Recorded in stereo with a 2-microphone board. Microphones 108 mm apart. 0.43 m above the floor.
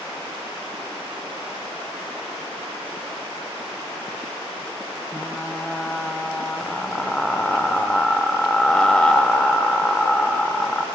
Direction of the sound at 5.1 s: 10° left (ahead or behind).